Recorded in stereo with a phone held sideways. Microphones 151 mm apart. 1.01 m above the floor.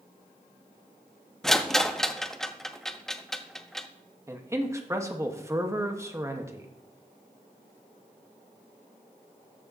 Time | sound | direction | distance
1.4 | a rattle | 5° left (ahead or behind) | 0.5 m
4.3 | a man speaking | 20° right (ahead or behind) | 1.1 m